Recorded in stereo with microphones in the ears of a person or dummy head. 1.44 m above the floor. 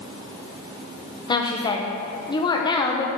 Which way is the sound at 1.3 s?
25° left (ahead or behind).